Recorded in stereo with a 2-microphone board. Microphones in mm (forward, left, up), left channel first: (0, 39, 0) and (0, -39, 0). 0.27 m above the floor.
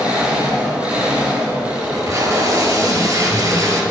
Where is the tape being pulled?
45° right (ahead or behind), 1.9 m.